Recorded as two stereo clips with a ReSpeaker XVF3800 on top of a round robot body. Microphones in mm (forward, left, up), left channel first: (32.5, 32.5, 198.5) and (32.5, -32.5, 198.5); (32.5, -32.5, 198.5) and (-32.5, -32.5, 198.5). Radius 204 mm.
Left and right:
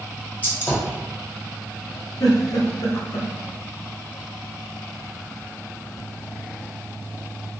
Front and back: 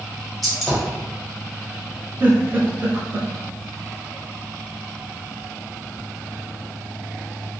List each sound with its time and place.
0.4 s a gunshot: 80° left, 1.3 m
2.2 s a giggle: 115° left, 0.6 m